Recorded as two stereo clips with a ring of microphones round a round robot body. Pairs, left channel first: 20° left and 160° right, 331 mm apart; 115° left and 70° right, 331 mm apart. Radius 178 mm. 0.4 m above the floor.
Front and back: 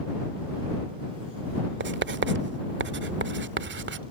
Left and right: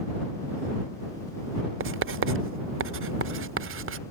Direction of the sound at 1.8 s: 110° right.